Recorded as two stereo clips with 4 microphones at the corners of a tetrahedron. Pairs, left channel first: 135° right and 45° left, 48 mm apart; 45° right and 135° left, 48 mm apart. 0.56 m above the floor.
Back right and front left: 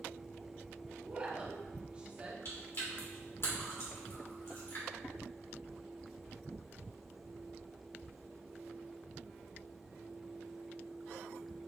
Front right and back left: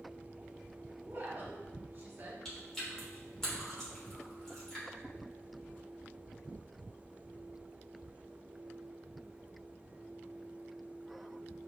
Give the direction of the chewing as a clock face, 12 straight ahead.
4 o'clock.